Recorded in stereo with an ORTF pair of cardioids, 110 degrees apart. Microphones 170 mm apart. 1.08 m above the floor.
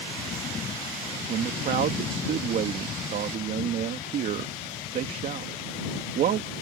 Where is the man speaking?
60° right.